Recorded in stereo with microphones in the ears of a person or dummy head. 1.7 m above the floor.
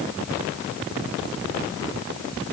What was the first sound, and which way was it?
Only background noise.